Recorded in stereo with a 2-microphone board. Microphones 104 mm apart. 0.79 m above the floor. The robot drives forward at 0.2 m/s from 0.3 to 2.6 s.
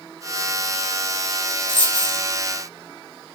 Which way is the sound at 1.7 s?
55° left (ahead or behind).